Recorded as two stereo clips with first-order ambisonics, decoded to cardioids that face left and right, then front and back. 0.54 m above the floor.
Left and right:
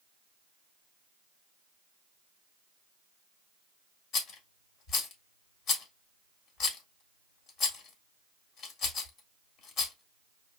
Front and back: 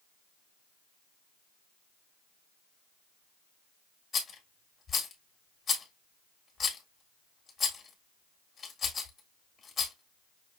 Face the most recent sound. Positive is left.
turn(degrees=70)